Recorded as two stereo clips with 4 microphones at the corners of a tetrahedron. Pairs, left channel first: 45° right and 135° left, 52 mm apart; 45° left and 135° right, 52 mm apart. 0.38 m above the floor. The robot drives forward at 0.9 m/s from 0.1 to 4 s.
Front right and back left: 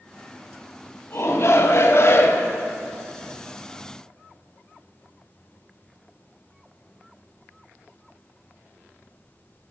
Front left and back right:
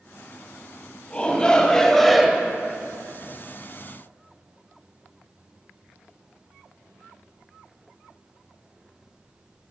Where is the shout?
25° right, 2 m; by 2.5 s 60° right, 1.1 m.